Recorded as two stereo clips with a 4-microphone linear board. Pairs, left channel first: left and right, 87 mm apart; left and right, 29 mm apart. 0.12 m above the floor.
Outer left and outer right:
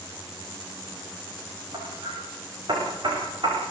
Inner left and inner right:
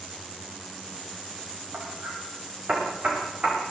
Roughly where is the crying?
I don't hear crying.